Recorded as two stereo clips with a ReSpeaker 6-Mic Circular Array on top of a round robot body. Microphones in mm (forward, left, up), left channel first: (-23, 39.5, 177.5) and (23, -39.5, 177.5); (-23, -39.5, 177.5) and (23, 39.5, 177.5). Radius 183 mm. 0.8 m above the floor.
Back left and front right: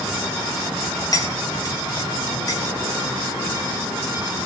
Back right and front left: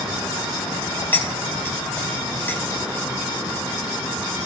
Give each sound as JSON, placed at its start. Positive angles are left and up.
{"t": 1.1, "sound": "cutlery clinking", "azimuth_deg": 170, "distance_m": 3.5}